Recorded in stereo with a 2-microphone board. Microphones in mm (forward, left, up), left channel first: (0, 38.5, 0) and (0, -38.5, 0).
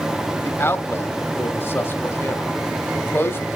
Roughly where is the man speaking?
Left.